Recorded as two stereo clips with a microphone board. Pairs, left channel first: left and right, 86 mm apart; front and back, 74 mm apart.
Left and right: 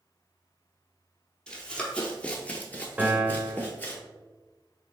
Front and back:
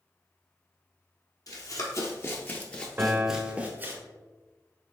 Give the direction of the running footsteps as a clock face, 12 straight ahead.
12 o'clock.